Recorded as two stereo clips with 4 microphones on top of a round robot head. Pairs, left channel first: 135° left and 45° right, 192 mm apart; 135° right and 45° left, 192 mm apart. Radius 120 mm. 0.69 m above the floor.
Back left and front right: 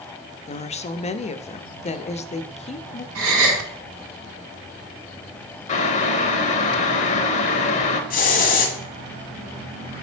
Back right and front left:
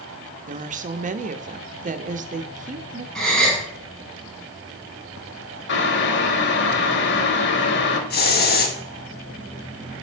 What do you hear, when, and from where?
0.5 s a woman speaking: 85° left, 0.8 m
3.1 s a gasp: 45° right, 4 m
5.7 s boiling: 170° right, 0.8 m
8.1 s a hiss: 175° right, 1.4 m